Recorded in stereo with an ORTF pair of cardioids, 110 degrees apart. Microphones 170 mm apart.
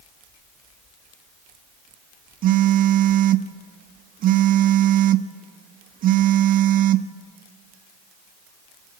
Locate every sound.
2.4 s a phone buzzing: 55° right, 0.9 m